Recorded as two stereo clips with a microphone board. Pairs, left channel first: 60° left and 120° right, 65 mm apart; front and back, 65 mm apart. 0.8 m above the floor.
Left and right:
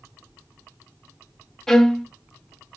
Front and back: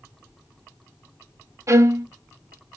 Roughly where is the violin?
Behind left.